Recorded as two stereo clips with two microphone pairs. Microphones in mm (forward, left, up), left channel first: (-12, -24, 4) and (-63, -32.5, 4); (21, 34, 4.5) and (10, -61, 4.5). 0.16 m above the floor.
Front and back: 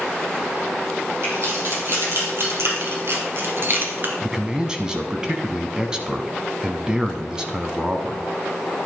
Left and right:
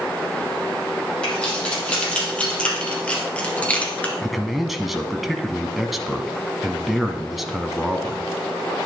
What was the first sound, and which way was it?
Keys jangling, 165° left.